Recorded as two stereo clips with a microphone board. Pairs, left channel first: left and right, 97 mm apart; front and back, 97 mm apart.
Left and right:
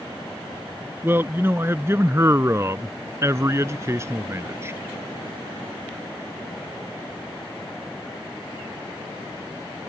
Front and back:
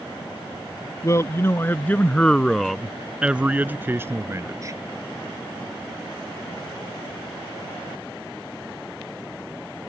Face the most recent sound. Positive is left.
turn(degrees=-140)